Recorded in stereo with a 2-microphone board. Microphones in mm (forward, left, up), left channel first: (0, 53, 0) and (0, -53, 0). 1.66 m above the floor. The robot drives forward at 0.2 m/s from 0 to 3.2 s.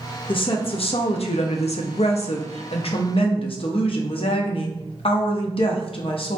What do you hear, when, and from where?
0.3 s a woman speaking: 55° left (ahead or behind), 0.6 m; by 6.4 s 60° left (ahead or behind), 0.5 m